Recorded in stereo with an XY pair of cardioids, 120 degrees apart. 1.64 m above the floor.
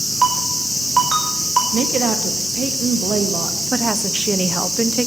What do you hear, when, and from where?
0.2 s a ringtone: 25° right, 5 m
1.7 s a woman speaking: 50° right, 1.8 m
3.7 s a woman speaking: 15° right, 0.8 m